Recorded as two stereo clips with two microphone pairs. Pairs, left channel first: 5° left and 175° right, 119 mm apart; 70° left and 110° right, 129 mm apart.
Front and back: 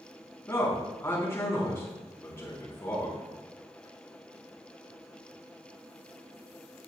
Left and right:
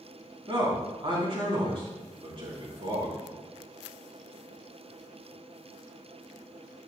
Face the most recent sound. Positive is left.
turn(degrees=-65)